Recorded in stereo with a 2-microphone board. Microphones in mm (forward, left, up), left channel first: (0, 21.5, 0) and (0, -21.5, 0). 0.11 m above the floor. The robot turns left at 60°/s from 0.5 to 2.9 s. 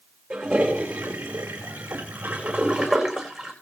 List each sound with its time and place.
0.3 s a toilet flushing: 30° right, 7.5 m; by 3.5 s 175° right, 7.5 m